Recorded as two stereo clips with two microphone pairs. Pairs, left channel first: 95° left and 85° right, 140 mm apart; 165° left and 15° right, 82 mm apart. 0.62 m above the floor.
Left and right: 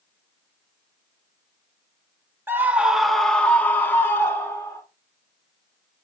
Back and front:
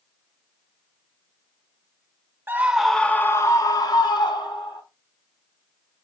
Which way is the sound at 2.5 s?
25° right.